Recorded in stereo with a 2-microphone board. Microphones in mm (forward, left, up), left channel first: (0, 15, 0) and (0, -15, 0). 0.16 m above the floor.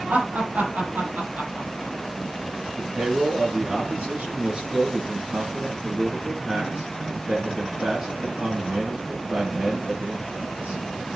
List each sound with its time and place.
0.1 s laughter: 75° right (ahead or behind), 5 m; by 1.9 s 65° right (ahead or behind), 4.5 m
2.8 s a man speaking: 40° right (ahead or behind), 3 m